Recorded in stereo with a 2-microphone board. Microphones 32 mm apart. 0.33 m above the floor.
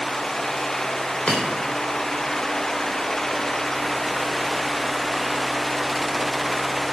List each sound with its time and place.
1.3 s breaking glass: 55° left (ahead or behind), 5.5 m